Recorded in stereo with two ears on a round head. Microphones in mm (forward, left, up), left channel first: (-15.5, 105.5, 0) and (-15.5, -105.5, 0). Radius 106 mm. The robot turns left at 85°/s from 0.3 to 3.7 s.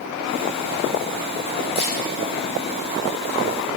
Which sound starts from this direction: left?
A camera shutter, at 1.8 s.